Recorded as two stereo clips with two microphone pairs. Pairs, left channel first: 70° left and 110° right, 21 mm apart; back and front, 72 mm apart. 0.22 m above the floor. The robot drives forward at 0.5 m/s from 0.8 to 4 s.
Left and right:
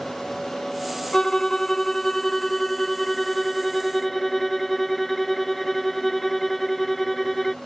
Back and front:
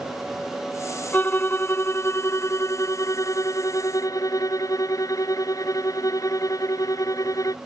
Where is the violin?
130° left; by 7.5 s 150° left.